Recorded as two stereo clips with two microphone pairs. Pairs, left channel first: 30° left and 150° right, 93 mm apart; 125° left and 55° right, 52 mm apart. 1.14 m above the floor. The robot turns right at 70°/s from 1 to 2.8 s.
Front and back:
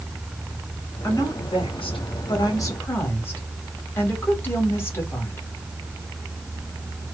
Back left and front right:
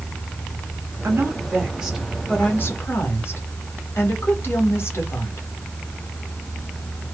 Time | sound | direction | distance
1.0 | a woman speaking | 30° right | 1.7 m